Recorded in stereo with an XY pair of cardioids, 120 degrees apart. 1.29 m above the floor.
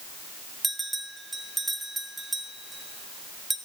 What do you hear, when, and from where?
0.6 s a bell: 15° right, 2.5 m